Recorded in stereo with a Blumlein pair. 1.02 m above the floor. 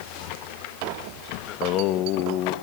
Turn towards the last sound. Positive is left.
turn(degrees=35)